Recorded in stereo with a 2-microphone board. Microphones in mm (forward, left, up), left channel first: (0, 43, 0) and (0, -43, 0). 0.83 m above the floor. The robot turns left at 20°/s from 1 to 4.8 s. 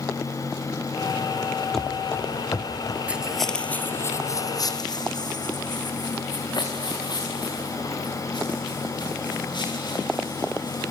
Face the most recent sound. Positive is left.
turn(degrees=65)  # may be behind; listen again after turning